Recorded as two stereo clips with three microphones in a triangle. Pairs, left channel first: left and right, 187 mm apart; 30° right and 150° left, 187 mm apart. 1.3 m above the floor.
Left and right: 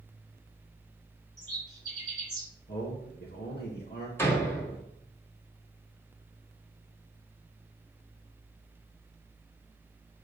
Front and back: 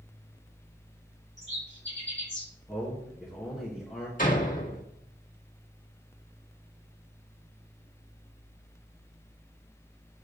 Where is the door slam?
10° left, 1.6 m.